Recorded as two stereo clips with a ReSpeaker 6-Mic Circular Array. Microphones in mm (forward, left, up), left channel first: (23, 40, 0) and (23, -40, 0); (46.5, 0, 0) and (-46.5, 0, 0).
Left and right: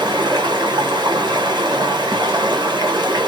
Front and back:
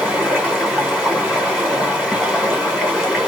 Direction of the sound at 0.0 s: 100° right.